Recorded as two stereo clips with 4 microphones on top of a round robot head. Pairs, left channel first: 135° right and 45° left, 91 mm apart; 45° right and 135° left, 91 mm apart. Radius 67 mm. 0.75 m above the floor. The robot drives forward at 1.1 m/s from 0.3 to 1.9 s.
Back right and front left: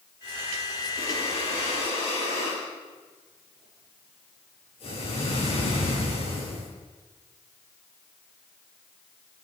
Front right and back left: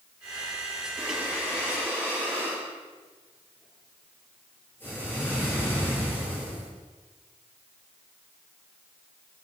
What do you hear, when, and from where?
1.0 s breathing: 110° right, 8 m; by 6.7 s 115° right, 8.5 m